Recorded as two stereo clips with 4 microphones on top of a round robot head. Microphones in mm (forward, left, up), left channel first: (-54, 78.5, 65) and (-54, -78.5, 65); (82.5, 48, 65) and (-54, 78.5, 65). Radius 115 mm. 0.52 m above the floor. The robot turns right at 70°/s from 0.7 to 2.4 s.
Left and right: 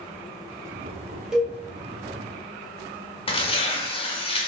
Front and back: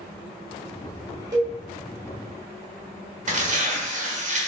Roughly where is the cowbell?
Behind.